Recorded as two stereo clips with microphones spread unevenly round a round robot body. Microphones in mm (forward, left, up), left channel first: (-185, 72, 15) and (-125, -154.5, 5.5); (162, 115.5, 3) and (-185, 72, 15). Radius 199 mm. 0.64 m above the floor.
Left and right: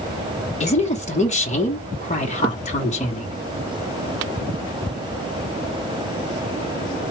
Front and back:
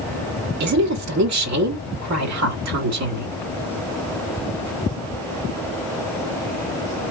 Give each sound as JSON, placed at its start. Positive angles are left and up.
{"t": 0.6, "sound": "a woman speaking", "azimuth_deg": 160, "distance_m": 1.3}